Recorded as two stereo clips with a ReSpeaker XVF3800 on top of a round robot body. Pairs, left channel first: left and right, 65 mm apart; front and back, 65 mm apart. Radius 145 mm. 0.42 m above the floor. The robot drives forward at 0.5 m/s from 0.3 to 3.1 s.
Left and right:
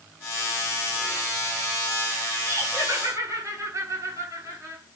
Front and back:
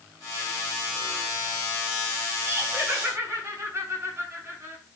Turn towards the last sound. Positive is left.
turn(degrees=-130)